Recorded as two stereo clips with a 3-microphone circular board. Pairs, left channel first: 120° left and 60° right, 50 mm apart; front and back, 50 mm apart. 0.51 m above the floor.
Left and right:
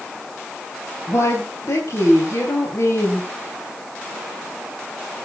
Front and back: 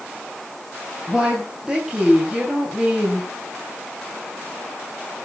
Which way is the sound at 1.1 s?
100° left.